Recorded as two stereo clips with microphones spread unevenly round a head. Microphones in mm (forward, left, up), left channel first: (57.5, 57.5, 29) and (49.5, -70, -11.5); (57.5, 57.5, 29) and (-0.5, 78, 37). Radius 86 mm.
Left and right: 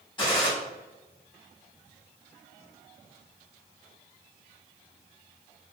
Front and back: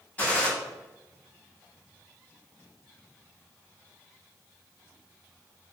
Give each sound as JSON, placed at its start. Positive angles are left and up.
{"t": 0.2, "sound": "a gunshot", "azimuth_deg": 50, "distance_m": 1.7}